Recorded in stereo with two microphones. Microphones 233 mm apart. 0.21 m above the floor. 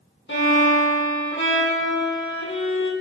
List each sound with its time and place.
0.3 s a violin: 60° left (ahead or behind), 1.0 m